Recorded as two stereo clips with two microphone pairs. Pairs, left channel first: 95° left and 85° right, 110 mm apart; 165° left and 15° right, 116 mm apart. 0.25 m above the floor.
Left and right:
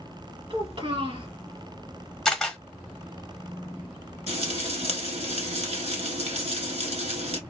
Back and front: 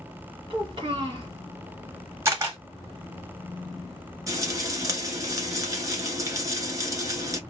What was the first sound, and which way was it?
A child speaking, 55° right.